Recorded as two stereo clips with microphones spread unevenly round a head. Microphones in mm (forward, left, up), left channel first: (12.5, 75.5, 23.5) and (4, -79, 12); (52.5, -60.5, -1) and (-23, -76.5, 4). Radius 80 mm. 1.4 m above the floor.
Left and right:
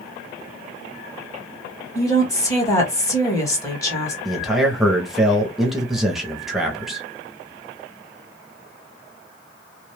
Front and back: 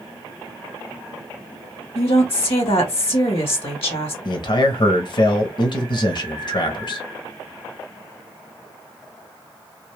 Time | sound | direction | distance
1.9 | a woman speaking | 15° left | 1.7 m
4.2 | a man speaking | 5° right | 1.0 m